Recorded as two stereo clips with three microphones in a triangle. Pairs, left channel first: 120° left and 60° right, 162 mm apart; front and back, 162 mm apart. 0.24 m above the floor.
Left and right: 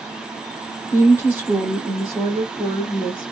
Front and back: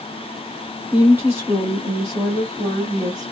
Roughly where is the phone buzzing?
I don't hear a phone buzzing.